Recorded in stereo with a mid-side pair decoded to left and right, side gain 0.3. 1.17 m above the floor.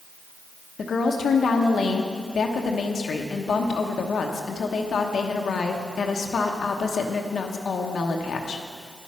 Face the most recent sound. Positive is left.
turn(degrees=70)